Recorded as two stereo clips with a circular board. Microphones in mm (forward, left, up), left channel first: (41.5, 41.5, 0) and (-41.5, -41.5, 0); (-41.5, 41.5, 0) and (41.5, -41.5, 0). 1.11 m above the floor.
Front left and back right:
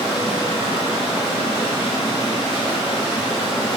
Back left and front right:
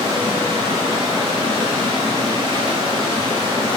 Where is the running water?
5° right, 2.5 m.